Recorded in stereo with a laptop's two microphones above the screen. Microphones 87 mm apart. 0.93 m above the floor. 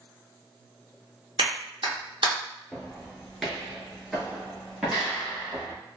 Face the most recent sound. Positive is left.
turn(degrees=-5)  # may be behind; listen again after turning